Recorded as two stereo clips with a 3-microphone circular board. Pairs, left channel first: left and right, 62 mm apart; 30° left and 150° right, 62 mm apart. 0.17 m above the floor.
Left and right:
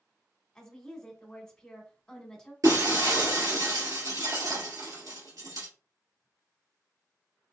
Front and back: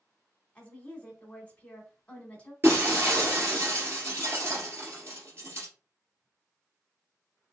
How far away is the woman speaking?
About 1.0 m.